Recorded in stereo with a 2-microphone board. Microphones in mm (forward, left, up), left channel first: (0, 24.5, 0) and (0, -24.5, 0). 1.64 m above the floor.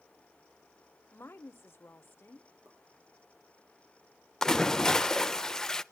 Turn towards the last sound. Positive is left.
turn(degrees=10)  # may be behind; listen again after turning